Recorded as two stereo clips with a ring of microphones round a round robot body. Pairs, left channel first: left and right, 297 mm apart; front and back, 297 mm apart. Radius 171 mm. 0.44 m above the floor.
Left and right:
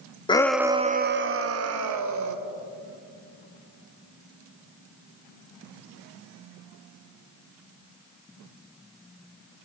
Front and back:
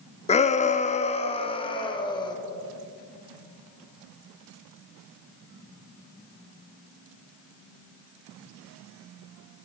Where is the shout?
40° left, 0.7 m; by 2.4 s 75° right, 1.6 m.